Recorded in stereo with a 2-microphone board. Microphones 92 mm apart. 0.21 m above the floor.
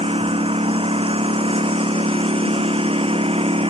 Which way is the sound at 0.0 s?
85° right.